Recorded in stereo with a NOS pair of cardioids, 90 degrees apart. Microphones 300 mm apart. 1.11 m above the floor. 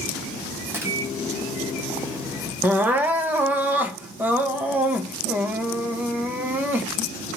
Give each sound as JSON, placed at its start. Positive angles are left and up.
{"t": 0.7, "sound": "a microwave", "azimuth_deg": -5, "distance_m": 0.9}
{"t": 2.6, "sound": "crying", "azimuth_deg": -5, "distance_m": 0.7}